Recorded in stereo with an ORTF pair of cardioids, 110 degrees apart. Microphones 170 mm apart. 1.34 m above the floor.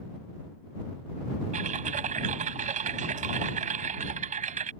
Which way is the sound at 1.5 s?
50° right.